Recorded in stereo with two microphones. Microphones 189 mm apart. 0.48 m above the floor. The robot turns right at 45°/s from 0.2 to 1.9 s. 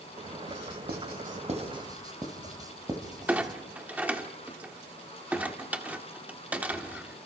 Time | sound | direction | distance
0.5 | writing | 75° right (ahead or behind) | 2 m
3.3 | a clunk | 10° right (ahead or behind) | 1.4 m